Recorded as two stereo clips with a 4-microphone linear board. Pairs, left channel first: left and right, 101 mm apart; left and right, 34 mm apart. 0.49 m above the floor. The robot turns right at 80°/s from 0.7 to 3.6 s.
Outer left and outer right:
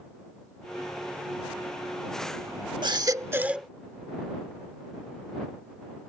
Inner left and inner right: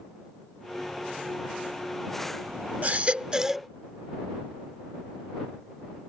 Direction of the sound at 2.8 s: 75° right.